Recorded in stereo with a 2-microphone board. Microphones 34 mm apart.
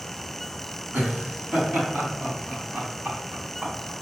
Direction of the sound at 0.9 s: 40° right (ahead or behind).